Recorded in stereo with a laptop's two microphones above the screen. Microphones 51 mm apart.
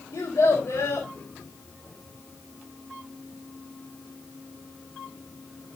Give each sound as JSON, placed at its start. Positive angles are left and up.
{"t": 0.1, "sound": "a child speaking", "side_deg": 80, "distance_m": 3.5}